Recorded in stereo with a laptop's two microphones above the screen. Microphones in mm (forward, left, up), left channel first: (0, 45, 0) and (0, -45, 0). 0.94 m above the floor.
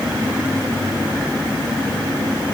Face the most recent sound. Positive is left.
No sound to turn to.